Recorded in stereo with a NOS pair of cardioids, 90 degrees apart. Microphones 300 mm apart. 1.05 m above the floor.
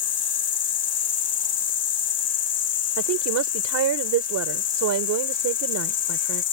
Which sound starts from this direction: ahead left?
An insect, at 0.0 s.